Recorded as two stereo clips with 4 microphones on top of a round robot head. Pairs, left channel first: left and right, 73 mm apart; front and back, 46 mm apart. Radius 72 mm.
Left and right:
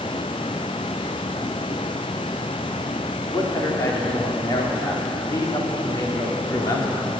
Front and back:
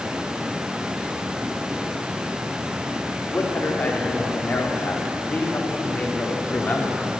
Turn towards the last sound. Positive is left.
turn(degrees=55)